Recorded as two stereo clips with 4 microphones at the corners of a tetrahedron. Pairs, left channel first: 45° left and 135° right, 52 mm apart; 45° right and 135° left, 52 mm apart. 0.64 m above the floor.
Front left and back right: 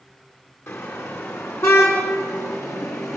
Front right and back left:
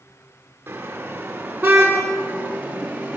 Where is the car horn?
80° left, 5.5 m; by 3.2 s 70° left, 6 m.